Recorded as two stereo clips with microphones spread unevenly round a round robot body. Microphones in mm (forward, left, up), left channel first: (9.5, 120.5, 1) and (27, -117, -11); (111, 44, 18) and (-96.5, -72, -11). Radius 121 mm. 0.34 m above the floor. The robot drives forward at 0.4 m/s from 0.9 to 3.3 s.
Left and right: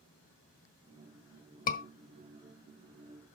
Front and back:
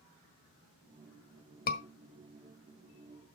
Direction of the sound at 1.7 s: 65° left.